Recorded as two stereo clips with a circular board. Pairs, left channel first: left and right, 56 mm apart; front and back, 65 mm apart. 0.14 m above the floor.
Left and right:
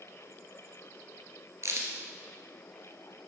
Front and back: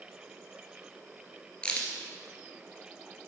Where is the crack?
70° right, 1.6 m.